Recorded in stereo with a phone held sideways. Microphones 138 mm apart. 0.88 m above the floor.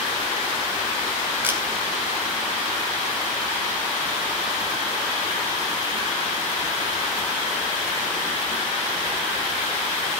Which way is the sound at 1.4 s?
15° right (ahead or behind).